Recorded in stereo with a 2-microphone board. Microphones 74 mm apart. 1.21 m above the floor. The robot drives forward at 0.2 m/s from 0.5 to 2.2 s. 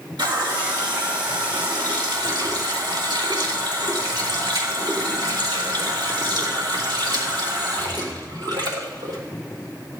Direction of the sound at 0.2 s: 85° right.